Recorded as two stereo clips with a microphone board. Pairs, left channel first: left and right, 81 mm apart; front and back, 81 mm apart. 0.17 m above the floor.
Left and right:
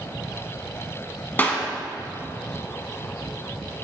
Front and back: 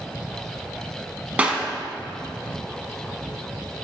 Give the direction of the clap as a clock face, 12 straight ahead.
8 o'clock.